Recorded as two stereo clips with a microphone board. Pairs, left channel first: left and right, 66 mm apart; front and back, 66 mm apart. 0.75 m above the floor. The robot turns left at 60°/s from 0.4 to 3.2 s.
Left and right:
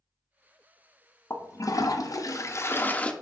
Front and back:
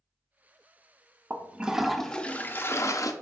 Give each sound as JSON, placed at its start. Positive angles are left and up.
{"t": 1.3, "sound": "a toilet flushing", "azimuth_deg": 125, "distance_m": 0.5}